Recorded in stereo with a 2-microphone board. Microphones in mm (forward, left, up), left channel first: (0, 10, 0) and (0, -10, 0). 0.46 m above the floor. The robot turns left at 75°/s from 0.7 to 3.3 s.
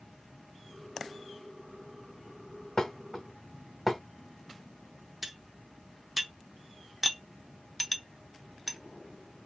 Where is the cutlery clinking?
5° right (ahead or behind), 0.5 m.